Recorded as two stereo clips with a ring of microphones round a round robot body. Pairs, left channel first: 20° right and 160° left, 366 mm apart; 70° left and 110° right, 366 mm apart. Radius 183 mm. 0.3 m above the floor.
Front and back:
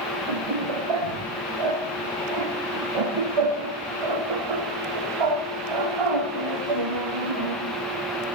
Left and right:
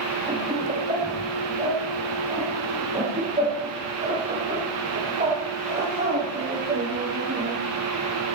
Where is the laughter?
170° left, 10 m; by 7.6 s 175° left, 20 m.